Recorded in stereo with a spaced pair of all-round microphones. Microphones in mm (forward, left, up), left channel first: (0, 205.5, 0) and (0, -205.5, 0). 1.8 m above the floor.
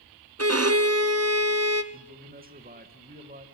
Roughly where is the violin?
Right.